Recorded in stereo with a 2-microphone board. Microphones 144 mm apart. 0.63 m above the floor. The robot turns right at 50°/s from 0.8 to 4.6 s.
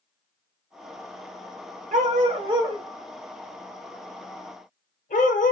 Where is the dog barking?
65° right (ahead or behind), 0.7 m; by 5.5 s 70° left (ahead or behind), 0.7 m.